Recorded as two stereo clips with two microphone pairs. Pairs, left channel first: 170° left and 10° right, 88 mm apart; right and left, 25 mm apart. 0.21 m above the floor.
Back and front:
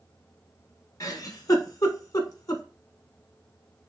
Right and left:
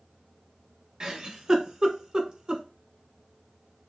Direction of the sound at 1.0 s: 140° left.